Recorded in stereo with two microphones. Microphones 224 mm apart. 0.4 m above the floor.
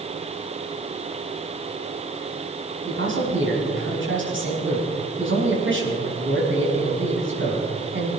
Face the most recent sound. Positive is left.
turn(degrees=-60)  # may be behind; listen again after turning